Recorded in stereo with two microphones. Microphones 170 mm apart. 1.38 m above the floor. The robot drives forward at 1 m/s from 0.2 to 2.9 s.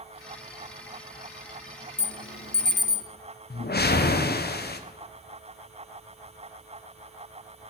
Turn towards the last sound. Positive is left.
turn(degrees=70)  # may be behind; listen again after turning